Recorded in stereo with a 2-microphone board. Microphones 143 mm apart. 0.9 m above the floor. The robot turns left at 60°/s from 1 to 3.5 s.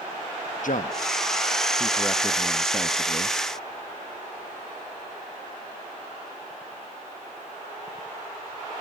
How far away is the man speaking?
About 0.9 m.